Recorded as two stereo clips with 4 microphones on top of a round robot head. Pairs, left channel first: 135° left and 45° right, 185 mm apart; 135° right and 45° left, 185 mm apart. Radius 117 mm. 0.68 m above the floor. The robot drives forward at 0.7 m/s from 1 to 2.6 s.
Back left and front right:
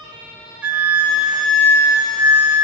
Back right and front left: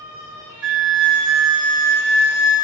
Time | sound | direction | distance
0.6 | a flute | 35° left | 1.4 m